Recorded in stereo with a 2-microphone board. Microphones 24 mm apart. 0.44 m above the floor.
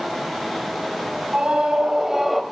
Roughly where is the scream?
Right.